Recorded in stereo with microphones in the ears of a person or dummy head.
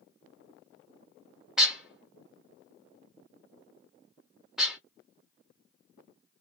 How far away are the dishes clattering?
About 1.0 m.